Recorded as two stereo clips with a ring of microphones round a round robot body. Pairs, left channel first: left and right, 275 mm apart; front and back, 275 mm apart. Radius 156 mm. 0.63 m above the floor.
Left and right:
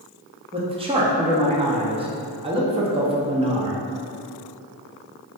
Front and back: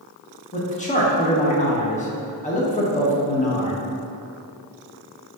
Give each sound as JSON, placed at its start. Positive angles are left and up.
{"t": 0.5, "sound": "a man speaking", "azimuth_deg": -35, "distance_m": 0.6}